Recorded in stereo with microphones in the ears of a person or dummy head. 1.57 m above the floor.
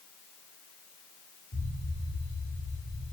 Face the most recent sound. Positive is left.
turn(degrees=25)  # may be behind; listen again after turning